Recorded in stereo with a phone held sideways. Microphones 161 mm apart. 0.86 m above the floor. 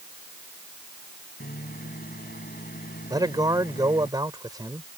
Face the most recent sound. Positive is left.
turn(degrees=-25)  # may be behind; listen again after turning